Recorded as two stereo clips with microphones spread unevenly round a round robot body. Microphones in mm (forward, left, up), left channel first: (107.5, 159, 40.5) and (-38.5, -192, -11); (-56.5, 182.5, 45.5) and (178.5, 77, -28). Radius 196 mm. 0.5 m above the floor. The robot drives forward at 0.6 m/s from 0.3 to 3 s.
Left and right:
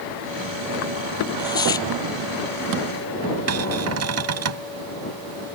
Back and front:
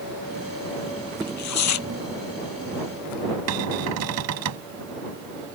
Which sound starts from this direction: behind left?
Tearing paper, at 1.2 s.